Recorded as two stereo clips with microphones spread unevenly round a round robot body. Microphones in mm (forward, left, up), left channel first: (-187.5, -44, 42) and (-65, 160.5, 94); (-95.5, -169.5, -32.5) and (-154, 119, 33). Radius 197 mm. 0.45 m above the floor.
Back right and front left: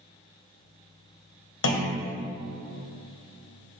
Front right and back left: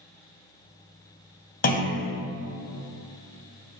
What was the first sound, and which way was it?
A clunk, 130° right.